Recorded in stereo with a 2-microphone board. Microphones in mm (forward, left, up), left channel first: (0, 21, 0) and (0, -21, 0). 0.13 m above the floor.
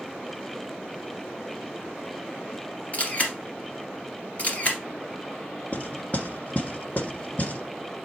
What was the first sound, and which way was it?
A camera shutter, 35° left (ahead or behind).